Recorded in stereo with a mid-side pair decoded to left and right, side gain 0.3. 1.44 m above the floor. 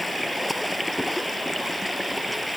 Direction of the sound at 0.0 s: 5° left.